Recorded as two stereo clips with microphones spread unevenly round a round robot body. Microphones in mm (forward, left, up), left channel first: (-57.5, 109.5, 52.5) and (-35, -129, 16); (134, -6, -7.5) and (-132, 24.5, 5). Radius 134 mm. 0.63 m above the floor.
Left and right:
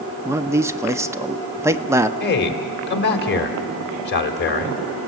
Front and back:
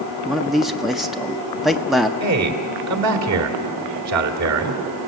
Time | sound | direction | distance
0.2 | a man speaking | 90° right | 0.6 m
2.2 | a man speaking | 145° left | 2 m